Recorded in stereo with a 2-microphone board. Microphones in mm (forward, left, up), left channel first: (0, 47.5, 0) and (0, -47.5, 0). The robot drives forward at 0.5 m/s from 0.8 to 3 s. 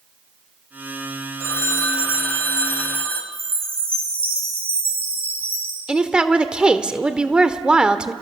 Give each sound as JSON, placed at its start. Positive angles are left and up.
{"t": 1.4, "sound": "a phone ringing", "side_deg": 30, "distance_m": 1.4}
{"t": 3.3, "sound": "a chime", "side_deg": -70, "distance_m": 7.5}
{"t": 5.9, "sound": "a woman speaking", "side_deg": -10, "distance_m": 1.2}